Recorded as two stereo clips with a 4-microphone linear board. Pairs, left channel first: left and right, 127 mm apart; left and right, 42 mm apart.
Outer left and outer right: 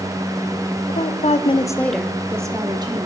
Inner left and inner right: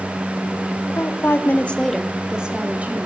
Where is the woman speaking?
80° left, 1.2 m; by 3.1 s 35° right (ahead or behind), 1.9 m.